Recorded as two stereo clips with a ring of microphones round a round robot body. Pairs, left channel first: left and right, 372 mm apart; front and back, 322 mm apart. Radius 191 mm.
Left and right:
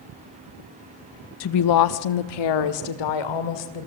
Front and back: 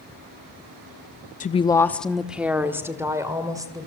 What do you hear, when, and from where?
1.4 s a woman speaking: 55° left, 0.6 m; by 3.9 s 100° left, 3 m